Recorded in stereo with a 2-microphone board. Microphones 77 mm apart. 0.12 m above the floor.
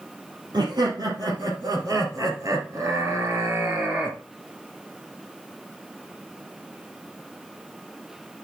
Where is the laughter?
65° right (ahead or behind), 3 m; by 4.2 s 15° right (ahead or behind), 2.0 m.